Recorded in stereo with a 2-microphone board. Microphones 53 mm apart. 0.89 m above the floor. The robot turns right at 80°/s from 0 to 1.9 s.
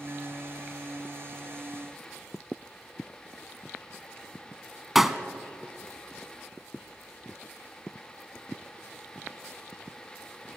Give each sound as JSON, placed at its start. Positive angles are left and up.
{"t": 5.0, "sound": "a pop", "side_deg": -5, "distance_m": 1.1}